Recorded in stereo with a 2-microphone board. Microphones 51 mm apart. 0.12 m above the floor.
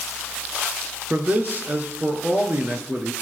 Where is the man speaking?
35° right (ahead or behind), 1.9 m.